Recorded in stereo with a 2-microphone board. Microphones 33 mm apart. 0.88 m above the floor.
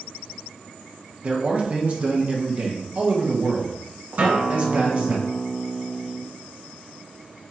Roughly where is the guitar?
Right.